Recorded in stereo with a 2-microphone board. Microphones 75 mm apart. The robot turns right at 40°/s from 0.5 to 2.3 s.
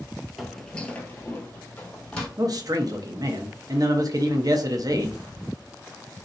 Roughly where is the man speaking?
Right.